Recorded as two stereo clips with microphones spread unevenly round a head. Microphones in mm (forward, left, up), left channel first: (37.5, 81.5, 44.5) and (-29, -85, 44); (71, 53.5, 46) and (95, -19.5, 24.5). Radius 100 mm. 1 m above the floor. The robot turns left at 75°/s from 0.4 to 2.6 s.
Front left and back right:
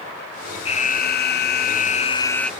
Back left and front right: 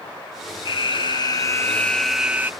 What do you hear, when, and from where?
0.7 s an alarm: 120° left; by 2.5 s 20° right